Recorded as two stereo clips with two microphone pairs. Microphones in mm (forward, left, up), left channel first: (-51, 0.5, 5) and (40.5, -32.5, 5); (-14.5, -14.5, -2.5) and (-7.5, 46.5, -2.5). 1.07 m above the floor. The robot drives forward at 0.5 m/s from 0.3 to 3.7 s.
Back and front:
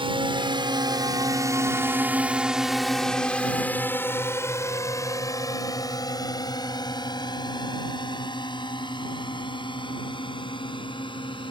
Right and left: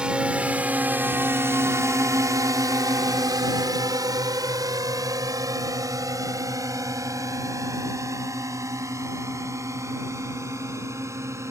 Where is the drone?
10° left; by 11.5 s 125° left.